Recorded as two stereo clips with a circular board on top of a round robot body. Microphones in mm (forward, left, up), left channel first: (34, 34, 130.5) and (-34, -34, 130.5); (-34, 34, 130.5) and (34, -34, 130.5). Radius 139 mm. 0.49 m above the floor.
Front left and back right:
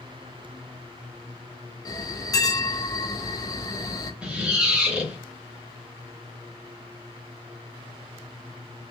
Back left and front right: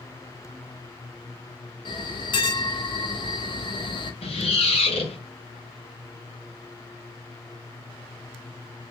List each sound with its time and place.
1.9 s a bell: 100° left, 0.8 m
4.2 s a squeak: 145° left, 1.5 m